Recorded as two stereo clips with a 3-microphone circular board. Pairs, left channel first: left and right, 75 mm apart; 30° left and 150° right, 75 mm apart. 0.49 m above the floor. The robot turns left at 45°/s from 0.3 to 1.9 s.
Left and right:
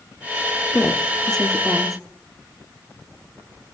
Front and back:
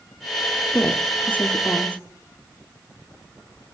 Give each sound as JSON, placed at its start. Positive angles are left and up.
{"t": 0.7, "sound": "a woman speaking", "azimuth_deg": 50, "distance_m": 1.0}